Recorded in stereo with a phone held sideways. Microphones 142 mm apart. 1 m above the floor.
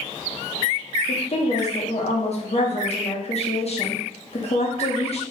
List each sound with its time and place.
1.1 s a woman speaking: 50° left (ahead or behind), 0.8 m